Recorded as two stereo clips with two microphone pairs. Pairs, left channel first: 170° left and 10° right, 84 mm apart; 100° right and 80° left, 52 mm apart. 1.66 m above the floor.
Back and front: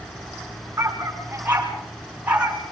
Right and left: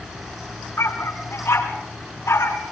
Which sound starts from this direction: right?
A dog barking, at 0.8 s.